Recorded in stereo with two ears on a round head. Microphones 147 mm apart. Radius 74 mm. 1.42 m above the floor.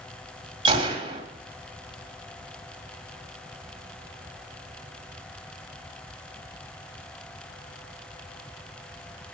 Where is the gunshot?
30° right (ahead or behind), 1.8 m.